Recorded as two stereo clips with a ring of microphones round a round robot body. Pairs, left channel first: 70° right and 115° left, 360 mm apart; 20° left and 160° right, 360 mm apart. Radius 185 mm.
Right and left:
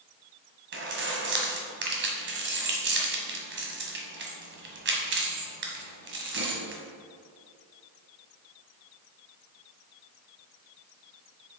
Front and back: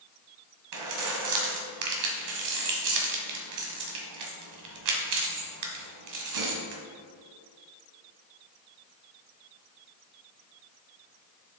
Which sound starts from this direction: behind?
Keys jangling, at 0.7 s.